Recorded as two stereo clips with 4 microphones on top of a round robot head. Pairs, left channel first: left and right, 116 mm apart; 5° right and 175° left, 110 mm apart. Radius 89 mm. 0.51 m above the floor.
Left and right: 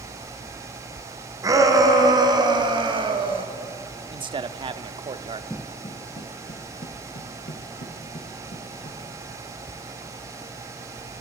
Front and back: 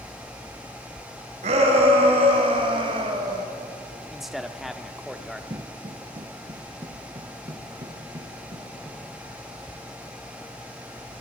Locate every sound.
1.4 s a shout: 150° right, 3.5 m; by 3.5 s 130° right, 2.5 m
4.1 s a man speaking: 100° right, 0.9 m
5.5 s footsteps: 165° left, 0.5 m; by 9.0 s 120° left, 5.5 m